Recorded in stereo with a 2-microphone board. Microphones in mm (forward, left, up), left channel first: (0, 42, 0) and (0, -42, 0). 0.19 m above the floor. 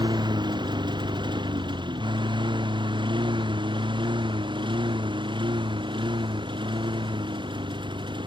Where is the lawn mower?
65° right (ahead or behind); by 8.3 s 80° right.